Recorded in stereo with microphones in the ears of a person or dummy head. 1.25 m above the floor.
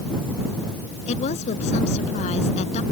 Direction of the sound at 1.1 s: 45° left (ahead or behind).